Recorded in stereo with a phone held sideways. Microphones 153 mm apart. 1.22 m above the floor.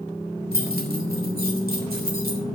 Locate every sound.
0.5 s keys jangling: 85° right, 3.5 m; by 2.4 s 80° right, 2.5 m